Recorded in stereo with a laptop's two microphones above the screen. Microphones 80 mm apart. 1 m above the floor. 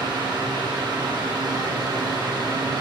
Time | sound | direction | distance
0.0 | a fan | 65° right (ahead or behind) | 1.4 m